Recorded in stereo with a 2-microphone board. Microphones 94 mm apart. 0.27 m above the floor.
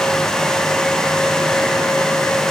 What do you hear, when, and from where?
Only background noise.